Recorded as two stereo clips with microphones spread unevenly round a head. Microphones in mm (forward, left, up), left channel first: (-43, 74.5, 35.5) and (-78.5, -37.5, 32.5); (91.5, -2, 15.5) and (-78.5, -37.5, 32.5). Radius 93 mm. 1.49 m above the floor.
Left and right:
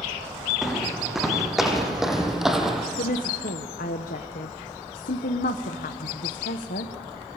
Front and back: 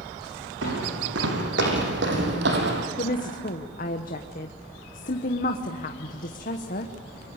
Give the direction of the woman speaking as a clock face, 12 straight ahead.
10 o'clock.